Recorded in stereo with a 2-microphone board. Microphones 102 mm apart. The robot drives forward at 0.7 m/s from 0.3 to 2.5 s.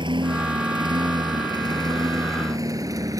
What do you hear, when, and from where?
0.0 s a lawn mower: 50° right (ahead or behind); by 3.2 s 35° right (ahead or behind)